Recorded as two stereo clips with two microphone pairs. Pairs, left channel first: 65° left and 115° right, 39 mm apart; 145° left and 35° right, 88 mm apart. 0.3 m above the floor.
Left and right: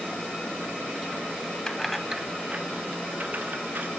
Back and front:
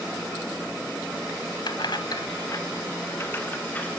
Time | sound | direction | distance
1.7 | keys jangling | 135° left | 1.1 m